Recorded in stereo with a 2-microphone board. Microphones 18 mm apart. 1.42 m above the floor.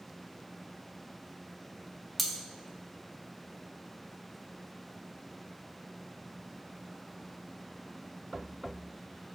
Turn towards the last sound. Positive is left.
turn(degrees=5)  # may be behind; listen again after turning